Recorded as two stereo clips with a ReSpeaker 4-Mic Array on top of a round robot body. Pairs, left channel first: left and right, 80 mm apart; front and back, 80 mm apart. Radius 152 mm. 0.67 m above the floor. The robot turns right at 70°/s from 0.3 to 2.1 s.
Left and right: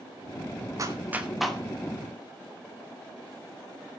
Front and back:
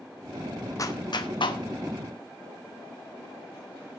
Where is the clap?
45° right, 2 m; by 1.6 s 10° left, 2 m.